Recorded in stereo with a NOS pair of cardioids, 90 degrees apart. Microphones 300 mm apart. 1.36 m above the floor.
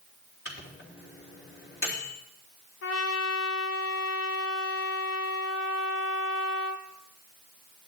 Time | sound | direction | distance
0.5 | a microwave | 45° left | 3 m
2.8 | a trumpet | 55° left | 1.3 m